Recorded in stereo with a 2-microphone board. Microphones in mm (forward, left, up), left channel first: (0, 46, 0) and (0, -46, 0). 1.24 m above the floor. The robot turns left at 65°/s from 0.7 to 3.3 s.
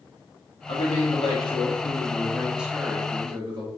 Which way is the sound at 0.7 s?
115° left.